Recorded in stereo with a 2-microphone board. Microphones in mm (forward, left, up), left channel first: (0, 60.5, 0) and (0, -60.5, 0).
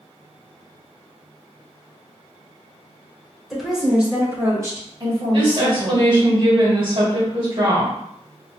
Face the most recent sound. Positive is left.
turn(degrees=-45)  # may be behind; listen again after turning